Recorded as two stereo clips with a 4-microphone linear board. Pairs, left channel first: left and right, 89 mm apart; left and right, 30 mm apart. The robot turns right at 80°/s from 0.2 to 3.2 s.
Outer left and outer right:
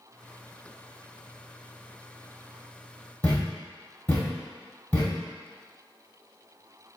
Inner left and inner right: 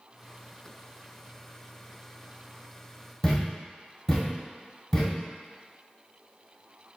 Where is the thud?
20° left (ahead or behind), 1.2 m.